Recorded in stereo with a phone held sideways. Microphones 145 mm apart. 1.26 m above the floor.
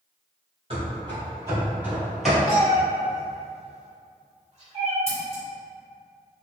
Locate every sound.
0.7 s running footsteps: 40° right (ahead or behind), 1.6 m; by 2.4 s 5° left (ahead or behind), 1.3 m
2.5 s a cat meowing: 50° right (ahead or behind), 1.3 m
5.1 s scissors: 45° right (ahead or behind), 1.4 m